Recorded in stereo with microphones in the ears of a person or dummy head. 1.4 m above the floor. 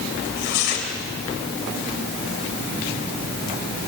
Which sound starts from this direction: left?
Tearing paper, at 0.2 s.